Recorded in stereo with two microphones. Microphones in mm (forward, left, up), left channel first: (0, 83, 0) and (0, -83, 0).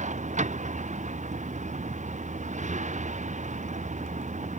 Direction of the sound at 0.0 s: 50° right (ahead or behind).